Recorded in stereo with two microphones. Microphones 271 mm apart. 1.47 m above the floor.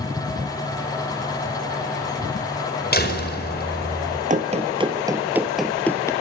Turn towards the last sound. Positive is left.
turn(degrees=10)  # may be behind; listen again after turning